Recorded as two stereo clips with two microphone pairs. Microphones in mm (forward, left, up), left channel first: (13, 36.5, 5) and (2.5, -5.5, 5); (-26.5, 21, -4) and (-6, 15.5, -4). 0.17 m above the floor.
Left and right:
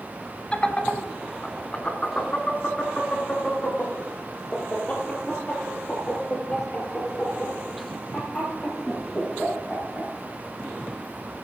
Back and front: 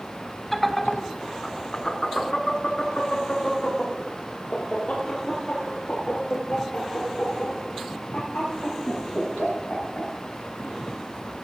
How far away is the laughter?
About 1.2 m.